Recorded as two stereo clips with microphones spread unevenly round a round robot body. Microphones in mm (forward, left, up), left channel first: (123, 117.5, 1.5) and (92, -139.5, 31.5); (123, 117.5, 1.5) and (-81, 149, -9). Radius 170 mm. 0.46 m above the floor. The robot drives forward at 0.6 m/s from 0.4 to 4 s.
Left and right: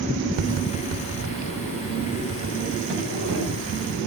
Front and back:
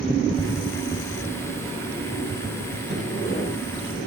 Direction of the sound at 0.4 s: 80° right.